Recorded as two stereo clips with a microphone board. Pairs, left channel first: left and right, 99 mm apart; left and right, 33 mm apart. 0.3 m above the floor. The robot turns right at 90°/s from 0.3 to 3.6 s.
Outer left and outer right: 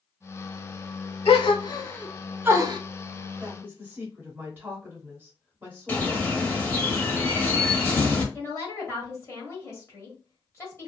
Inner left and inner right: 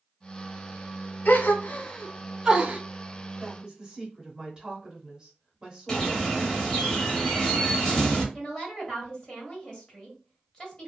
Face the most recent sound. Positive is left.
turn(degrees=30)  # may be behind; listen again after turning